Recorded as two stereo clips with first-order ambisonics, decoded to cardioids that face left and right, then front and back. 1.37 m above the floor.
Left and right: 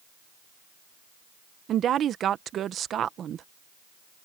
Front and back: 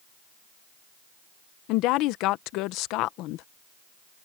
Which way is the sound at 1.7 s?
30° right.